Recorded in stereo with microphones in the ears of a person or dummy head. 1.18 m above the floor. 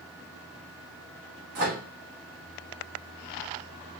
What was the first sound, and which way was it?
A microwave, 45° right (ahead or behind).